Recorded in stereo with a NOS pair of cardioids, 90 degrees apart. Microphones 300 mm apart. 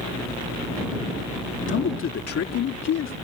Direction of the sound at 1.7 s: 40° left.